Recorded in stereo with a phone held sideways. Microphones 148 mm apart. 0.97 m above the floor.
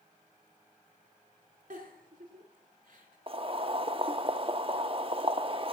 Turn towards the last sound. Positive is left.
turn(degrees=-40)  # may be behind; listen again after turning